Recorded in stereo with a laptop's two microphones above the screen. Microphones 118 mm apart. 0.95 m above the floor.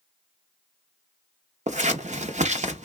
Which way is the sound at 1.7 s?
85° right.